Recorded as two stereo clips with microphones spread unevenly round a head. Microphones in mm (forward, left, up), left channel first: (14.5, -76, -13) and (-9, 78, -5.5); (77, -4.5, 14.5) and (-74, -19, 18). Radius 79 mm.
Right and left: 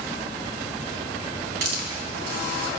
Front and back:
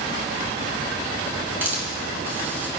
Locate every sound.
1.6 s a hiss: 105° left, 3 m